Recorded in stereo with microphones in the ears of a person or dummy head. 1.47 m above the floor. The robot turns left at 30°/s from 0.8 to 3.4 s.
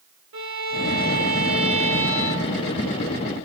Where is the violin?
110° right, 1.1 m; by 2.8 s 170° right, 1.1 m.